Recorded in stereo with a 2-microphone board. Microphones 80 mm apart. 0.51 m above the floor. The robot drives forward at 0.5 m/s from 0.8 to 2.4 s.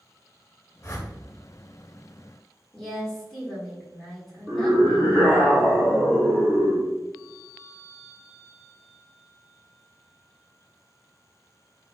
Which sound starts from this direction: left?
A whoosh, at 0.8 s.